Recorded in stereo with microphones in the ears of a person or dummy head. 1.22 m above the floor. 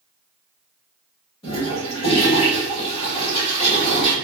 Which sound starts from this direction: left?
A toilet flushing, at 1.4 s.